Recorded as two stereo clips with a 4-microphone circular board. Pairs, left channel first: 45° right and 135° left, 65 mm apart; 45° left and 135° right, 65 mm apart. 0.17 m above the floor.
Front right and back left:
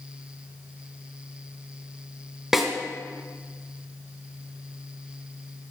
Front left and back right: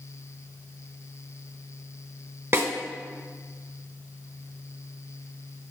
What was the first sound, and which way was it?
A snare drum, 145° right.